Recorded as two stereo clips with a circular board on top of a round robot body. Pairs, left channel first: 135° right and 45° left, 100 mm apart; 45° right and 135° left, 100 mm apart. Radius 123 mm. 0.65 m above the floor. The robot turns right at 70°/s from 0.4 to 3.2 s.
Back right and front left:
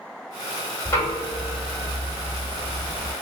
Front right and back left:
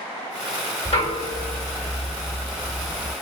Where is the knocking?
75° right, 1.9 m; by 3.1 s 85° left, 1.9 m.